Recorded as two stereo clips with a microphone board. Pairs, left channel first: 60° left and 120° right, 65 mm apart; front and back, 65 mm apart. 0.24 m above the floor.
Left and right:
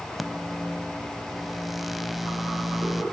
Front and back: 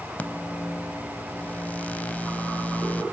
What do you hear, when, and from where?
0.2 s a microwave: 35° right, 0.8 m